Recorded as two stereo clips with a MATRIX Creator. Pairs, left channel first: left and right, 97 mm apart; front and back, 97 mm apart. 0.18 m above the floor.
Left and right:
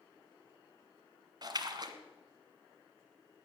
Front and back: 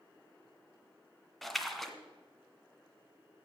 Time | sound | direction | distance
1.4 | a splash | 90° right | 1.5 m